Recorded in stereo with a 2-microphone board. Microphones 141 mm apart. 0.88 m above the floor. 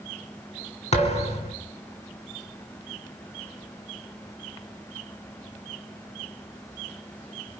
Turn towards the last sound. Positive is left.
turn(degrees=50)  # may be behind; listen again after turning